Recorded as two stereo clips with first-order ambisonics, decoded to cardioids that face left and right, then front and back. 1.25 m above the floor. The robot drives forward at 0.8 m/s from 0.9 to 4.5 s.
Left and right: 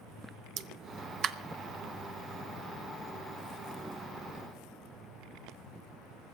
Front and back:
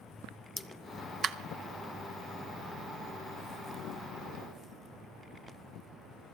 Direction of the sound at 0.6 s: 80° right.